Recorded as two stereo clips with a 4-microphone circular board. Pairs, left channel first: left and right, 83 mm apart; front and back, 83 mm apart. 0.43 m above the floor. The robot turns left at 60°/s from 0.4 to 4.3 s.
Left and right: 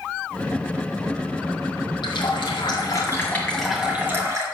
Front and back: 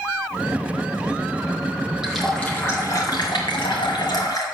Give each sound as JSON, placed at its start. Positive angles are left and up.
{"t": 2.0, "sound": "a running tap", "azimuth_deg": 100, "distance_m": 1.8}